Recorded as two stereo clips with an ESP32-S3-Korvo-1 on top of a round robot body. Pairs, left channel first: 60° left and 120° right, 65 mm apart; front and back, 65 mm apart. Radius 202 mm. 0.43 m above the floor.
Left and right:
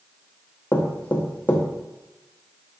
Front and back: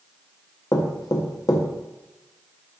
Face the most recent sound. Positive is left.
turn(degrees=0)